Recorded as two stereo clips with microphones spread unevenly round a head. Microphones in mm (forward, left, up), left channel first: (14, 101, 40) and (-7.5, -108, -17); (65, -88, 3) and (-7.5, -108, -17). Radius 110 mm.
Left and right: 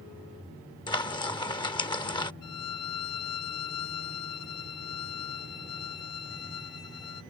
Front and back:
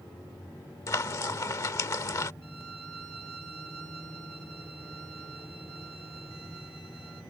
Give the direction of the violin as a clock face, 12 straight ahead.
9 o'clock.